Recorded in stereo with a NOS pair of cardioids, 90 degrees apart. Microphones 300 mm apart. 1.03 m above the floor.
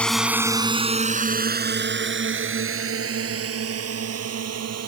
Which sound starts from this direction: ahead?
A drone, at 0.0 s.